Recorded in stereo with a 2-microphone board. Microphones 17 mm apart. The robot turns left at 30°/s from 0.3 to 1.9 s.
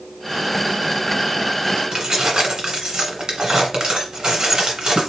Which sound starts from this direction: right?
Keys jangling, at 1.9 s.